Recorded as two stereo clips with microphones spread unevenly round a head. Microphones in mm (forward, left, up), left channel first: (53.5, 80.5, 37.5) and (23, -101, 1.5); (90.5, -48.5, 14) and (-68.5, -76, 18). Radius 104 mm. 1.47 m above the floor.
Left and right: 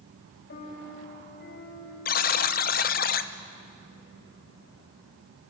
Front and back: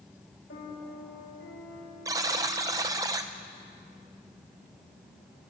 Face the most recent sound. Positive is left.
turn(degrees=115)